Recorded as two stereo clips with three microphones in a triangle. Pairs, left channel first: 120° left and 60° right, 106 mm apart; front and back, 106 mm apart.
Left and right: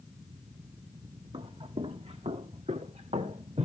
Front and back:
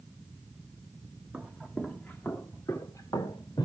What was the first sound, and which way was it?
Footsteps, 95° right.